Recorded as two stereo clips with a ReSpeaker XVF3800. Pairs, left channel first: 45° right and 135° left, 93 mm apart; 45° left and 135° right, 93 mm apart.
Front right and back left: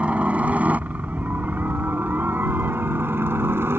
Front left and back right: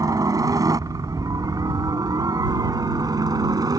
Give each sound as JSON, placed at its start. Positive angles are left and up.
{"t": 0.0, "sound": "a helicopter", "azimuth_deg": -155}